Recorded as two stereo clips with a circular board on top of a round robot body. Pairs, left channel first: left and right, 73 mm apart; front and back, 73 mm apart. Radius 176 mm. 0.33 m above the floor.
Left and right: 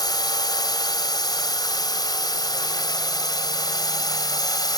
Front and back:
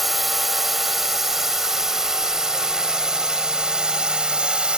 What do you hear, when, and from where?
0.0 s a drone: 90° left; by 4.8 s 105° left